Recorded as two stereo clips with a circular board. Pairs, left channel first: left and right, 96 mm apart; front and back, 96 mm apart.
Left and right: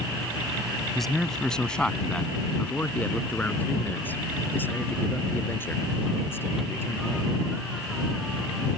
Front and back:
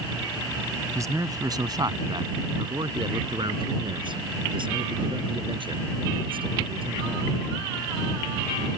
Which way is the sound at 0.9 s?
175° left.